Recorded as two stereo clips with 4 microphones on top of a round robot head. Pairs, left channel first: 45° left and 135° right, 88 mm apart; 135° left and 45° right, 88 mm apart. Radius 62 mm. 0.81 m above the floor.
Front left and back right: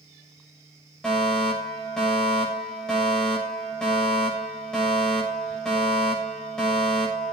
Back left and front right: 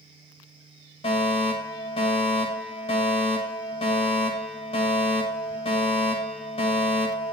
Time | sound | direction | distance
1.0 | a fire alarm | 130° left | 7.5 m